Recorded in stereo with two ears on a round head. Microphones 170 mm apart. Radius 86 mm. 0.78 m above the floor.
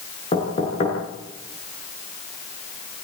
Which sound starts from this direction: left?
Knocking, at 0.3 s.